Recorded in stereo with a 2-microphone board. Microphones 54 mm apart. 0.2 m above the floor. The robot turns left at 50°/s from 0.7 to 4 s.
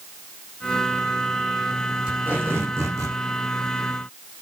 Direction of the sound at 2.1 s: 15° right.